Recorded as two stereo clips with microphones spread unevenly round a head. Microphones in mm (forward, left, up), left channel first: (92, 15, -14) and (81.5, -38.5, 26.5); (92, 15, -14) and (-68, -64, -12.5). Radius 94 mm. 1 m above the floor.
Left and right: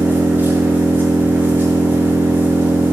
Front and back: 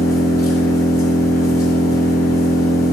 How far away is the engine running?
About 6 m.